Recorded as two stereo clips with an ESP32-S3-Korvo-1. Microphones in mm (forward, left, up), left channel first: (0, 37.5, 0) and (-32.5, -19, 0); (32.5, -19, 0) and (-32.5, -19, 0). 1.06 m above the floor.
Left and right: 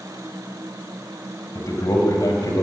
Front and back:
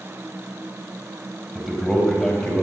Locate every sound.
1.6 s a man speaking: 90° left, 5 m; by 2.6 s 80° left, 4 m